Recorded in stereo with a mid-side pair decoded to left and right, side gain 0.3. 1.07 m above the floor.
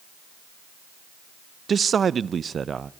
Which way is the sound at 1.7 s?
60° right.